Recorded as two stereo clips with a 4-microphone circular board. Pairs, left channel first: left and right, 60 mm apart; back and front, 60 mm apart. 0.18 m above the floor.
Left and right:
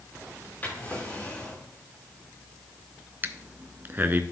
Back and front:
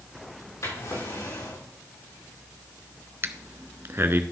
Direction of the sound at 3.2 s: 40° right.